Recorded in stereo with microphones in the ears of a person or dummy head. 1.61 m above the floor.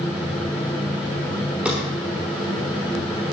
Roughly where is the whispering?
I don't hear whispering.